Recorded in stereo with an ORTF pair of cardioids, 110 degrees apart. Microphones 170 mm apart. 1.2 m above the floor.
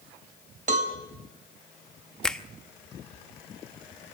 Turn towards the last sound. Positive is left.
turn(degrees=5)